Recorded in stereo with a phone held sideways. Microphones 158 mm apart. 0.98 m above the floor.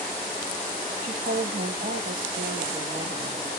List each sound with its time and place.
1.0 s a woman speaking: 55° right (ahead or behind), 1.7 m